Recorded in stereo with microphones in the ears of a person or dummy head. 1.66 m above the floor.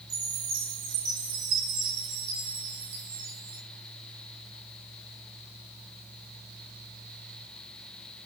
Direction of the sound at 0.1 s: 55° right (ahead or behind).